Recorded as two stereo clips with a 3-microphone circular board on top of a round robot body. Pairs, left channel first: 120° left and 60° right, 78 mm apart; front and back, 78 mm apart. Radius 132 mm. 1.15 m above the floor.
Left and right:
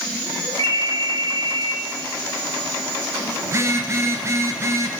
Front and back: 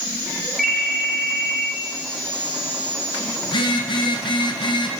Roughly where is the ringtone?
Right.